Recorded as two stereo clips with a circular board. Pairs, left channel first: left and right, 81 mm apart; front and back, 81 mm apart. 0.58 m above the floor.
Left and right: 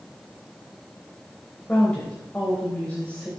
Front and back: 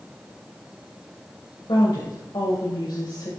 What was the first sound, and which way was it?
A woman speaking, 20° left.